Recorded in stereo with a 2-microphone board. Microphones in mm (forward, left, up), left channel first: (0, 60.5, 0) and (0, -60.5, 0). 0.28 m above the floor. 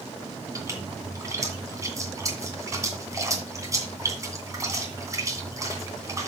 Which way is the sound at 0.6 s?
25° right (ahead or behind).